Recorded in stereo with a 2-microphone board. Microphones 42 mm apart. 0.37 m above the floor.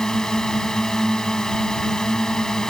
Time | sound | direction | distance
0.0 | a drone | 15° left (ahead or behind) | ?